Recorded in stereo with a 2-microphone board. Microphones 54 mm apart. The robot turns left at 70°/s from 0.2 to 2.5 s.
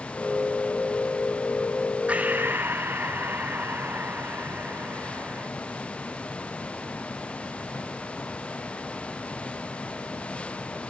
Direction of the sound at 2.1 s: 25° right (ahead or behind).